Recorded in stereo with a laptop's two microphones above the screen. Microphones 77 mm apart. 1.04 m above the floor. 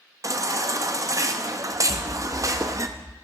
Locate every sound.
0.2 s a baby crying: 45° right (ahead or behind), 0.6 m
1.9 s an explosion: 50° left (ahead or behind), 0.6 m